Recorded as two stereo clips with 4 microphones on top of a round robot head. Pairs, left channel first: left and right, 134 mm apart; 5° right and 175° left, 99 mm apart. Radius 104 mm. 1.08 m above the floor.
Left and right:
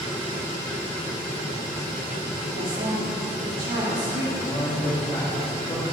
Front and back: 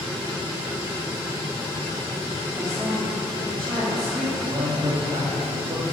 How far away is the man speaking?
About 2.5 m.